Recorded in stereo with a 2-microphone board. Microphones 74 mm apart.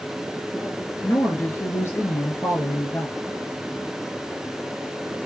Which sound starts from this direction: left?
A woman speaking, at 1.0 s.